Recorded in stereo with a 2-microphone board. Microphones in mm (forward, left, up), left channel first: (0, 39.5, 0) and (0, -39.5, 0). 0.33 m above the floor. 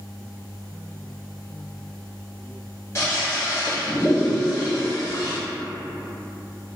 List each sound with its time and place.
3.0 s a toilet flushing: 40° left (ahead or behind), 1.3 m